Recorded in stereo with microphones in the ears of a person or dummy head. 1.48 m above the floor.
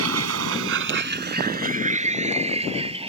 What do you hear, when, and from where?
0.0 s a vehicle: 85° right; by 3.1 s 25° right (ahead or behind)